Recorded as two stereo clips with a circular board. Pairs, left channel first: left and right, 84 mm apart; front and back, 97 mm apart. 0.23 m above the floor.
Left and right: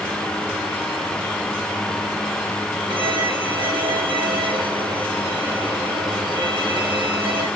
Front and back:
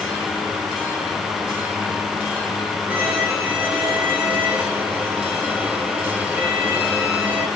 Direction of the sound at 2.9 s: 105° right.